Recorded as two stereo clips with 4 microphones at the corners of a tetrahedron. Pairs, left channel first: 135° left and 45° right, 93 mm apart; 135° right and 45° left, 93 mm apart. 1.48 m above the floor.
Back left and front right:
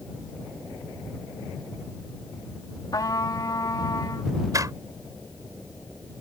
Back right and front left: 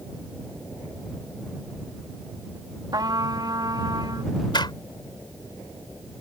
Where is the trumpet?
90° left.